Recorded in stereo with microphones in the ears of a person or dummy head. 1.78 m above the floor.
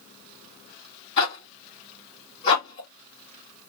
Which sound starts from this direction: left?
A zipper, at 1.2 s.